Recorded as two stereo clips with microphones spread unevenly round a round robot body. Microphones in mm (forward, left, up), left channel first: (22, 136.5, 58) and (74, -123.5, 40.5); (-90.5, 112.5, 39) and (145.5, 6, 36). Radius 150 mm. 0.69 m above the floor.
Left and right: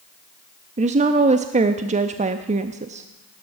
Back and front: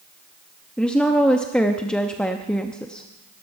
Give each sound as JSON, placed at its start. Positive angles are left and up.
{"t": 0.8, "sound": "a woman speaking", "azimuth_deg": -120, "distance_m": 0.6}